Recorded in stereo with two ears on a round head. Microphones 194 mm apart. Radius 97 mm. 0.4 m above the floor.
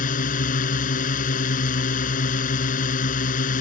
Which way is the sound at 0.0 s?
40° left (ahead or behind).